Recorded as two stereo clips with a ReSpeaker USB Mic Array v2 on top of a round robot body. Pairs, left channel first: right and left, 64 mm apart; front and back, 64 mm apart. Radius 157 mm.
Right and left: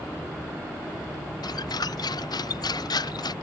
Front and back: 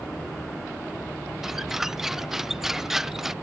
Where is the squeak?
95° right.